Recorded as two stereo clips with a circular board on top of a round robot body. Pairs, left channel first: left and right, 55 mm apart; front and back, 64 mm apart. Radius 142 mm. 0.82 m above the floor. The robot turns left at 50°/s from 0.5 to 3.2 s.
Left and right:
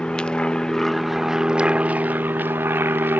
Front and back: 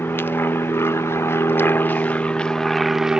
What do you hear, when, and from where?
0.0 s an aircraft: 25° left; by 3.2 s 110° right